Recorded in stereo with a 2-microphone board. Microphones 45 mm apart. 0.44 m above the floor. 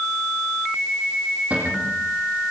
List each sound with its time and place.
1.5 s a cupboard door: 30° right (ahead or behind), 8 m